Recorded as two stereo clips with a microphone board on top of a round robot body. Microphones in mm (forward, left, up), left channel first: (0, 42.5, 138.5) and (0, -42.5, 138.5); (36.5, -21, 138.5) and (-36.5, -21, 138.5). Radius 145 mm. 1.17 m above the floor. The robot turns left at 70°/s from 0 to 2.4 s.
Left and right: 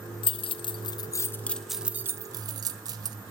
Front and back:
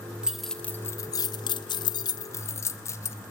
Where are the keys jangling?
100° left, 0.6 m; by 3.2 s 50° right, 0.6 m.